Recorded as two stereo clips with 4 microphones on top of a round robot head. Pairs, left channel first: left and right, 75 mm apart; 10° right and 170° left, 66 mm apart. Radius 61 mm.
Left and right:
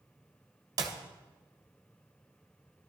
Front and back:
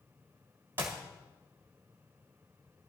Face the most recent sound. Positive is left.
turn(degrees=-120)